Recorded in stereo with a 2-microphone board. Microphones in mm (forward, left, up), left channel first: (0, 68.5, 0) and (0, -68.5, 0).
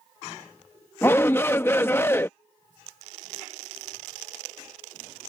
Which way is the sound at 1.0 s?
15° left (ahead or behind).